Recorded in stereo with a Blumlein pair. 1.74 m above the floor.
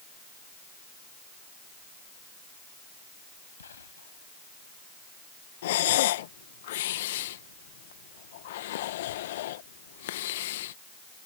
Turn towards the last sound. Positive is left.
turn(degrees=55)